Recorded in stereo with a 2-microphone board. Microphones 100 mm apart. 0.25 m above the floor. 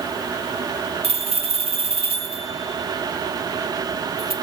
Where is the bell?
80° right, 1.0 m.